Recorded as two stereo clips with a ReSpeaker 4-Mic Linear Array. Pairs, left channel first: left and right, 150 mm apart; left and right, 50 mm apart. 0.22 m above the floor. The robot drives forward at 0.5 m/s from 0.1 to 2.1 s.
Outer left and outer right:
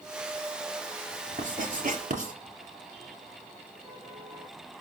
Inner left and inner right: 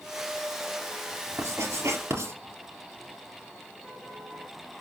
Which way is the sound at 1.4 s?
55° right (ahead or behind).